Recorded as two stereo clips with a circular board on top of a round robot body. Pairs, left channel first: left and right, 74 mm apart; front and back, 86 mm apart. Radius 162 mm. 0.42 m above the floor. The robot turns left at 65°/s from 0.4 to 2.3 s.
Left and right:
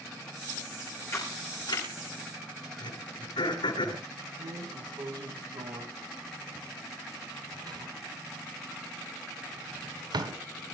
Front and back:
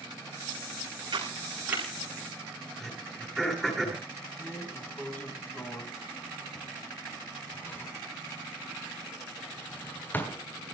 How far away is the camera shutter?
About 9 m.